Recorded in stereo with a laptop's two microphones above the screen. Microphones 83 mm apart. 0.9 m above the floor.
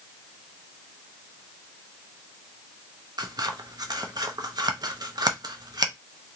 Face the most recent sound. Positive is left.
turn(degrees=-55)  # may be behind; listen again after turning